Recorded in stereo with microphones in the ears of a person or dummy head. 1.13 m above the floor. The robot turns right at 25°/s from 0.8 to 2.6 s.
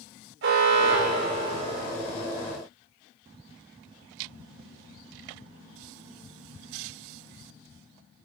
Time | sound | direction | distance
0.4 | an alarm | 60° right (ahead or behind) | 3 m